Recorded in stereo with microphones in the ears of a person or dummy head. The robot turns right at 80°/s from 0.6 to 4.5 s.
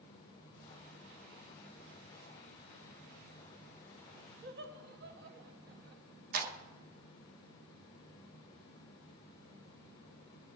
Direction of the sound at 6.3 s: 50° right (ahead or behind).